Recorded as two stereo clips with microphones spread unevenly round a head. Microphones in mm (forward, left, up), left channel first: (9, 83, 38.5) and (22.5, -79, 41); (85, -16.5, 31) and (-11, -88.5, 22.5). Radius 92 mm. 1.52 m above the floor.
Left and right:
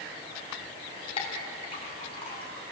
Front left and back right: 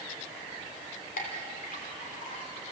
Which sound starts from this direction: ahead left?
A clink, at 1.2 s.